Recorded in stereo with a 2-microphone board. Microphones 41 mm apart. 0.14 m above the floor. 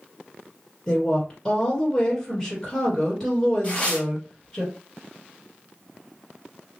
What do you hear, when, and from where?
0.9 s a woman speaking: 15° left (ahead or behind), 1.9 m
3.6 s tearing paper: 25° left (ahead or behind), 2 m